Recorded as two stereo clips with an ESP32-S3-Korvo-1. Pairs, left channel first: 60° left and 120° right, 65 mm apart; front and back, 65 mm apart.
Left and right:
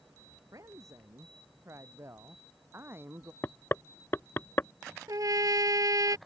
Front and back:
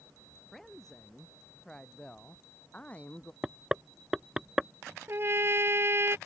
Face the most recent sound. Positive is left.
turn(degrees=-135)